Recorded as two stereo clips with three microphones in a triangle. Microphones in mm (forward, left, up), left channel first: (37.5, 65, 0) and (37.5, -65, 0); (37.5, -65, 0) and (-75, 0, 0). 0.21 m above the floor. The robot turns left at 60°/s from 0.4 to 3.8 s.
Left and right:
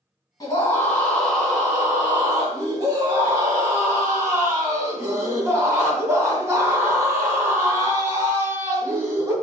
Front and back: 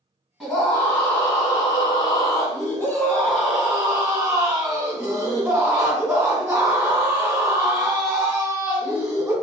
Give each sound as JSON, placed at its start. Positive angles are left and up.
{"t": 0.4, "sound": "a scream", "azimuth_deg": 65, "distance_m": 1.7}